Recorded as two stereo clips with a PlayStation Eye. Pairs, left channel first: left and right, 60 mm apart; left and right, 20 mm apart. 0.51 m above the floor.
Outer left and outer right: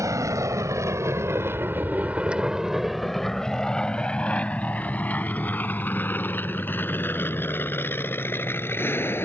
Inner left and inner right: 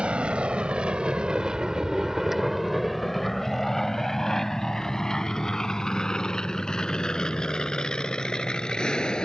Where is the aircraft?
60° right (ahead or behind); by 9.3 s 35° left (ahead or behind).